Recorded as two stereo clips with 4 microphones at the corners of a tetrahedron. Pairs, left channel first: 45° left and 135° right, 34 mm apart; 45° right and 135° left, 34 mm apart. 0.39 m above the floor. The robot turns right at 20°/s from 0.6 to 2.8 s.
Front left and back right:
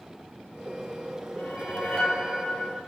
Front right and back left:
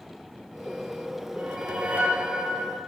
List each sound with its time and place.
1.4 s a whoosh: 90° left, 1.5 m; by 2.8 s 120° left, 1.5 m